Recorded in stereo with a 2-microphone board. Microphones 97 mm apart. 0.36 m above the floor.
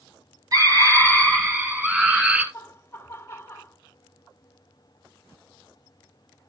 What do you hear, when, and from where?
0.5 s a scream: 40° right (ahead or behind), 2.5 m; by 2.4 s 15° right (ahead or behind), 4.5 m
2.5 s laughter: 25° left (ahead or behind), 1.9 m